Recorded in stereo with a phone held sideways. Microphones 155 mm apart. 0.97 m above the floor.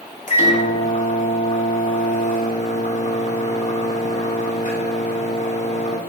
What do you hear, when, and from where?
0.3 s a microwave: 50° left (ahead or behind), 2.5 m